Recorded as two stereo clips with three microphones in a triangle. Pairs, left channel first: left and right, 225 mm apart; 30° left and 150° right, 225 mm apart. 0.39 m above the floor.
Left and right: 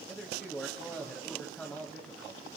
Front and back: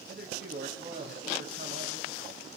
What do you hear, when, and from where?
0.1 s a man speaking: 175° left, 2.0 m